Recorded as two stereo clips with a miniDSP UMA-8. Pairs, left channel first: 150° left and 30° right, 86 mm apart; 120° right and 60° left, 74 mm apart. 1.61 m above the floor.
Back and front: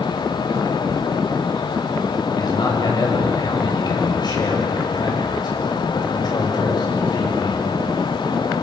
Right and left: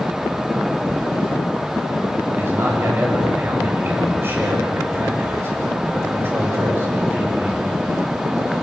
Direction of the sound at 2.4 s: 115° left.